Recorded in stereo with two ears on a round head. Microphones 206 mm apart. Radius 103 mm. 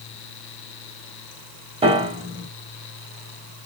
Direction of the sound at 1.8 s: 25° right (ahead or behind).